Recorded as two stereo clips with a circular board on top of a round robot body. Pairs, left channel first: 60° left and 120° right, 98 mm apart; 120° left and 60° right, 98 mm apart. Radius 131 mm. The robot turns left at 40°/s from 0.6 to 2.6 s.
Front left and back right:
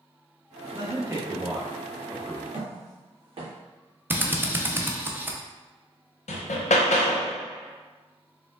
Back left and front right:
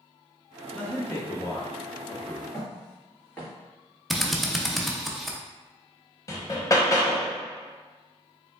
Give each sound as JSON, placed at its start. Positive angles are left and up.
{"t": 0.7, "sound": "a man speaking", "azimuth_deg": -165, "distance_m": 0.9}
{"t": 2.5, "sound": "footsteps", "azimuth_deg": -160, "distance_m": 1.7}
{"t": 4.1, "sound": "a drill", "azimuth_deg": -150, "distance_m": 0.9}
{"t": 6.3, "sound": "hammering", "azimuth_deg": 60, "distance_m": 0.6}